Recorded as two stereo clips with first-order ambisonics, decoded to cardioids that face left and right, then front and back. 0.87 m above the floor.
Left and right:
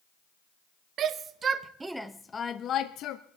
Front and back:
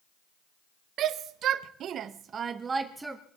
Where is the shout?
135° right, 1.0 m; by 3.2 s 95° left, 0.8 m.